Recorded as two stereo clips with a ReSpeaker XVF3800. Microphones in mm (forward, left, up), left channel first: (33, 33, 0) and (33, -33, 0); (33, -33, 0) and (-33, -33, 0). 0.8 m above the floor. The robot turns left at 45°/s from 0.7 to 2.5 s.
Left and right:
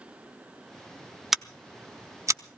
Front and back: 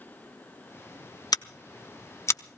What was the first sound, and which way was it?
Scissors, 5° right.